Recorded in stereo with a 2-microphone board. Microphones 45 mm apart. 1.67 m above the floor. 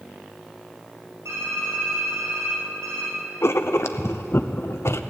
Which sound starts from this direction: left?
Writing, at 3.4 s.